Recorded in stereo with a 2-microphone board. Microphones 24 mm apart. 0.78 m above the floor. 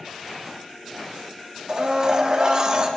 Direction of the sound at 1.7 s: 35° right (ahead or behind).